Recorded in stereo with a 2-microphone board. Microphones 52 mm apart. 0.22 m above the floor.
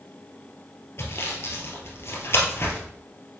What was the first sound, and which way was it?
Sawing, 50° left (ahead or behind).